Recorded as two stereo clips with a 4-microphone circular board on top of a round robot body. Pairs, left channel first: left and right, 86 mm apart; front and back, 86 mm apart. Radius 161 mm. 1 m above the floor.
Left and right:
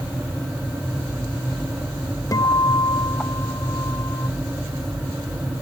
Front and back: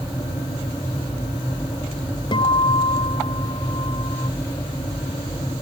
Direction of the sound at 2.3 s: 35° left.